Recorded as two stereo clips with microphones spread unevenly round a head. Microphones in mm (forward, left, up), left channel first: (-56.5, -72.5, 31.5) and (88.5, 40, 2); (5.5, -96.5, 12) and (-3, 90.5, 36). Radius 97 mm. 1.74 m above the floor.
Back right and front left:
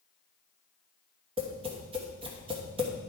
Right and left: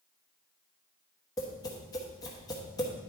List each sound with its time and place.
1.4 s tapping: 20° right, 1.2 m